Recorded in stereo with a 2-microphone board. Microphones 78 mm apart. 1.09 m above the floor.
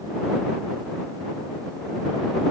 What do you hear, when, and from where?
Only background noise.